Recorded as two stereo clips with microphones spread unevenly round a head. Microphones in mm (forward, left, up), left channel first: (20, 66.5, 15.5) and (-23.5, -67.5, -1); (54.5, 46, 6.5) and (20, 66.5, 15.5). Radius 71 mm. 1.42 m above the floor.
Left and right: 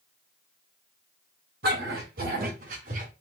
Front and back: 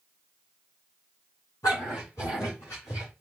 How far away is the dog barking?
About 3.5 m.